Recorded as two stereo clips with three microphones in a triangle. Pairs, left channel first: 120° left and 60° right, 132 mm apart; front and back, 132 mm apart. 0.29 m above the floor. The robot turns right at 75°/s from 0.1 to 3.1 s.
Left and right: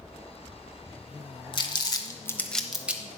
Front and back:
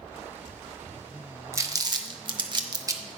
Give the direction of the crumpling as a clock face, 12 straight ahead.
8 o'clock.